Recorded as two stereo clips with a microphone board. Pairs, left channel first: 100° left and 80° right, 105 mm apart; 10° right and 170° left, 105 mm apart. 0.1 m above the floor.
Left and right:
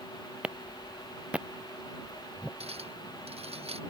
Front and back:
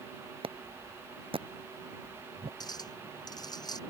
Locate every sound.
0.4 s a clap: 160° right
2.6 s a clink: 60° right